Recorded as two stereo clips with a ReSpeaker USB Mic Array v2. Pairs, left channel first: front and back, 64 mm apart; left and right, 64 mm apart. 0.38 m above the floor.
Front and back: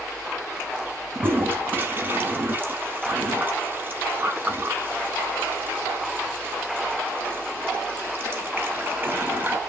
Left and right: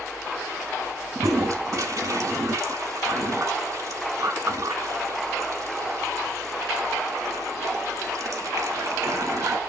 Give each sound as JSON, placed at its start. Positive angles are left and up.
{"t": 1.1, "sound": "a toilet flushing", "azimuth_deg": -125, "distance_m": 0.8}